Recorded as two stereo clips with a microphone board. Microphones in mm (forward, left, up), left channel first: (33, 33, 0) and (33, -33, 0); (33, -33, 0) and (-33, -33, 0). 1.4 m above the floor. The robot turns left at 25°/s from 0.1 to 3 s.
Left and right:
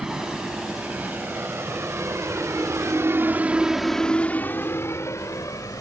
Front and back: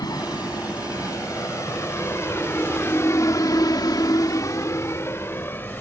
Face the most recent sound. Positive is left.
turn(degrees=55)